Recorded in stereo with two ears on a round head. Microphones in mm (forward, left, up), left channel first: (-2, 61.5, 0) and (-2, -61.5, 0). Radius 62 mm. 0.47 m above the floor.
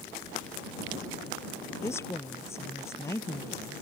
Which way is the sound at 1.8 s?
20° left (ahead or behind).